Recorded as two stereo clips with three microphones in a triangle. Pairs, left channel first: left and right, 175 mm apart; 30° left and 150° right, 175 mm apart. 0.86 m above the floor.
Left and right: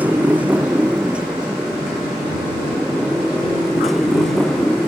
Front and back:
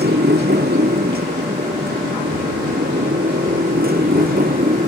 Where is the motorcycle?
170° right; by 4.9 s 175° left.